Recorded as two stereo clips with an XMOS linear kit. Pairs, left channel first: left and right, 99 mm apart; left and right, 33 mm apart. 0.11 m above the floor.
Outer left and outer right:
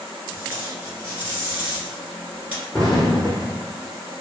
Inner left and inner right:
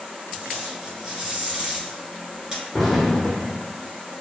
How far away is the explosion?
About 0.7 m.